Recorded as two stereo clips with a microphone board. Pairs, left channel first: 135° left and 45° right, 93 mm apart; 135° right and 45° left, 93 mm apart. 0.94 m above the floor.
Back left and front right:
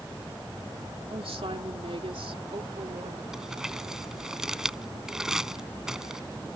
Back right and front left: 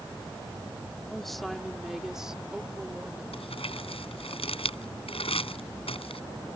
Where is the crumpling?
130° right.